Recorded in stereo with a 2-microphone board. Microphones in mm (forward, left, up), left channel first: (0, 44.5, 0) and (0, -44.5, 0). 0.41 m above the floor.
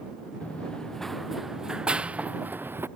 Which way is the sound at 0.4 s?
15° left (ahead or behind).